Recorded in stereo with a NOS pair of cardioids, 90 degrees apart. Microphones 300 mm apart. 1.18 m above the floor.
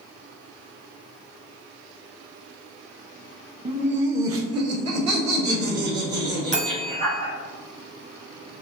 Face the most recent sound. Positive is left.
turn(degrees=-25)